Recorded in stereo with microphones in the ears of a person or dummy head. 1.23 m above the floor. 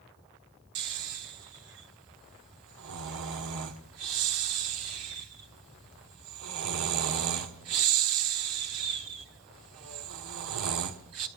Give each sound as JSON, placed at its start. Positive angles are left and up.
{"t": 0.8, "sound": "snoring", "side_deg": -60, "distance_m": 1.4}